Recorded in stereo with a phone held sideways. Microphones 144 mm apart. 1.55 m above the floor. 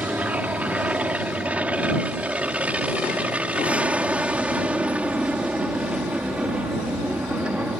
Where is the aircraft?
10° right (ahead or behind).